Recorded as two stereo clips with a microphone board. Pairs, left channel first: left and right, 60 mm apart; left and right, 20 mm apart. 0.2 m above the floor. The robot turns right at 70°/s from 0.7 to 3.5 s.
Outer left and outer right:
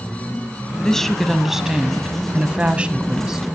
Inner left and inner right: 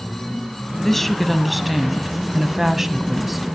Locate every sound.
0.8 s a woman speaking: 10° left (ahead or behind), 1.0 m; by 3.5 s 10° right (ahead or behind), 1.0 m